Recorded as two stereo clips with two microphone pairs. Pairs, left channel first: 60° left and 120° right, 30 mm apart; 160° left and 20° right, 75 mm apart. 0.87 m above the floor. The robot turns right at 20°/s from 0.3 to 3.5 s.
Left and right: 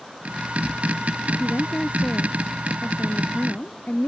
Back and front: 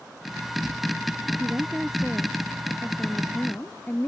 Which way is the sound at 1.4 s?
55° left.